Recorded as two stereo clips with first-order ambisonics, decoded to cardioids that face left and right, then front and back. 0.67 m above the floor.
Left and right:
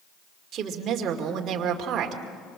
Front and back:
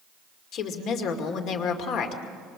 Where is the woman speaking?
35° right, 2.5 m.